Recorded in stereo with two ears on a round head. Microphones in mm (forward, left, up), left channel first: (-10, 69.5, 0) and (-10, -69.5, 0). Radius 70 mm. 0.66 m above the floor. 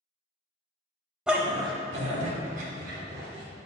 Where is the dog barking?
5° right (ahead or behind), 0.7 m; by 3.5 s 65° right (ahead or behind), 2 m.